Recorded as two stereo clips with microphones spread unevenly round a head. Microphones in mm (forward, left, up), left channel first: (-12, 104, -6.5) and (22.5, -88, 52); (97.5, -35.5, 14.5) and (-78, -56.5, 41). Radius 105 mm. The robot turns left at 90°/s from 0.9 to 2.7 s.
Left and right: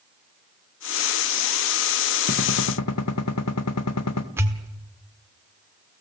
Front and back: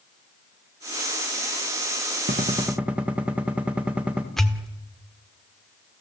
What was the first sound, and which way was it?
A gunshot, 140° left.